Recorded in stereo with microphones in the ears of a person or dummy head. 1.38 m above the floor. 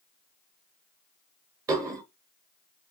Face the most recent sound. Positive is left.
turn(degrees=-20)  # may be behind; listen again after turning